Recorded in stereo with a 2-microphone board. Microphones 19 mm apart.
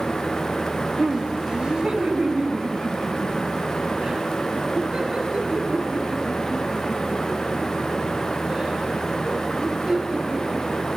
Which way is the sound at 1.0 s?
40° right (ahead or behind).